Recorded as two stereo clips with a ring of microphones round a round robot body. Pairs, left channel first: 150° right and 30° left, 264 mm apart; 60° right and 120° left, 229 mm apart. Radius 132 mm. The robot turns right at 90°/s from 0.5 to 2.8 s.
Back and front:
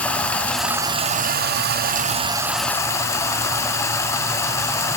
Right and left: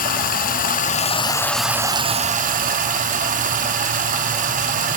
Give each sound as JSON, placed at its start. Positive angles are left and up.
{"t": 0.0, "sound": "running water", "azimuth_deg": -70, "distance_m": 0.8}